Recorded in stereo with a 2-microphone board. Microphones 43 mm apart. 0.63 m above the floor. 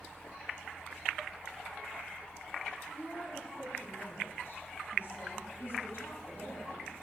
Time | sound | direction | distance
2.9 | a woman speaking | 40° left (ahead or behind) | 6 m